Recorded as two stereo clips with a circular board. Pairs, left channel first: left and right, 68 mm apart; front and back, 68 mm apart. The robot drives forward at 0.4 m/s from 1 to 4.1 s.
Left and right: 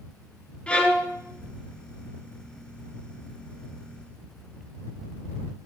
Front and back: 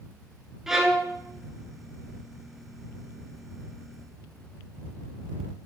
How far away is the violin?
About 0.9 m.